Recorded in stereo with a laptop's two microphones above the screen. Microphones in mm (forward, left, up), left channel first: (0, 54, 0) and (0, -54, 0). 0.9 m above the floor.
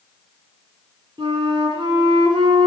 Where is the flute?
45° right (ahead or behind), 2.5 m.